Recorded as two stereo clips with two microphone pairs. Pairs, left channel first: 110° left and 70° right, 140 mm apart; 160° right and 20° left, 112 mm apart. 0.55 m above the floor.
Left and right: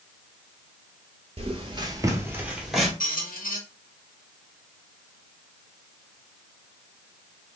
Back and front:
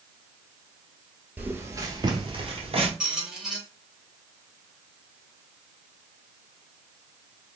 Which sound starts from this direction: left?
A squeak, at 3.0 s.